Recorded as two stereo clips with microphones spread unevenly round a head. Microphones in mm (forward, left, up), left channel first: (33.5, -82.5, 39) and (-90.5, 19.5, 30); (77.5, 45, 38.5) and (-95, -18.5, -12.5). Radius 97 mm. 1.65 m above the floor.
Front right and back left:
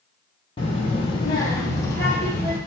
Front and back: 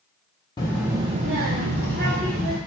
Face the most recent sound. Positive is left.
turn(degrees=-115)